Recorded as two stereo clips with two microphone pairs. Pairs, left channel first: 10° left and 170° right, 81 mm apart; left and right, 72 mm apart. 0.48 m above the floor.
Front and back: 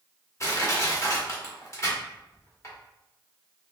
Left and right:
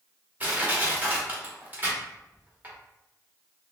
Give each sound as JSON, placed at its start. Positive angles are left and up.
{"t": 0.4, "sound": "crushing", "azimuth_deg": -30, "distance_m": 1.1}